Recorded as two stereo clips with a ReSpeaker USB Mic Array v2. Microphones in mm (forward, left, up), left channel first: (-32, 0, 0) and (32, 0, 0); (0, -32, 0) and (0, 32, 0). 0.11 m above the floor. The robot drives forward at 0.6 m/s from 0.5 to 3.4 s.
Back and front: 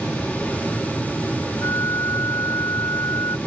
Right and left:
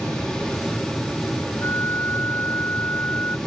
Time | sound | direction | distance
1.6 | a flute | 140° right | ?